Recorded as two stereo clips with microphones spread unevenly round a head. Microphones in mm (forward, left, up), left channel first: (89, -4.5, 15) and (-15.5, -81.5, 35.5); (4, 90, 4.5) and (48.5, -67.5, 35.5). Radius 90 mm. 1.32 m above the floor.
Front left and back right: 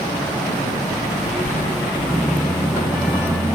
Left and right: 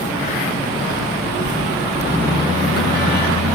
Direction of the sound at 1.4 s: 75° left.